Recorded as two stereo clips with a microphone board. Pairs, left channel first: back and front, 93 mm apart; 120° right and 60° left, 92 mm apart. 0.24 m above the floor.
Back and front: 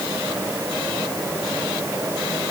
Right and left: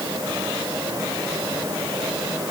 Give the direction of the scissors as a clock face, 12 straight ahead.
No scissors in this recording.